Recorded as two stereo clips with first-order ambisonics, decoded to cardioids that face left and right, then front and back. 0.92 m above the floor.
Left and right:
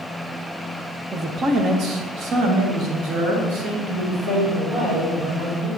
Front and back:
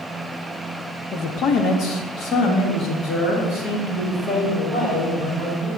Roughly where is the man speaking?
Ahead right.